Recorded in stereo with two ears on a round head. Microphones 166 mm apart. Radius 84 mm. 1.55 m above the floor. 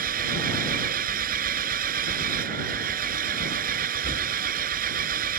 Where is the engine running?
45° right (ahead or behind).